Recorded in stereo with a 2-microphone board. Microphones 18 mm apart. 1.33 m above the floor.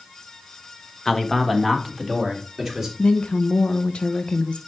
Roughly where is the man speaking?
Left.